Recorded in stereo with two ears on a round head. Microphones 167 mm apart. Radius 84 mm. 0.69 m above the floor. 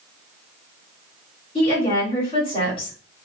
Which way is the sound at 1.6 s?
30° left (ahead or behind).